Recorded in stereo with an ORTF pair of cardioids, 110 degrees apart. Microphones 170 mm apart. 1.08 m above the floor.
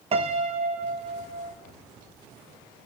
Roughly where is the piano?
Ahead right.